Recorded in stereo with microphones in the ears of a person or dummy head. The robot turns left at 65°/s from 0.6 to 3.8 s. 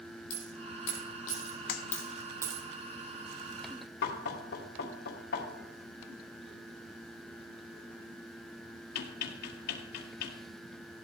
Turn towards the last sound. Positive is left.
turn(degrees=65)  # may be behind; listen again after turning